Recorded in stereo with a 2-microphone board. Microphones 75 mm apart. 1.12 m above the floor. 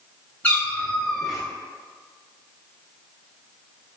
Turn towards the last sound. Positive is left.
turn(degrees=-10)  # may be behind; listen again after turning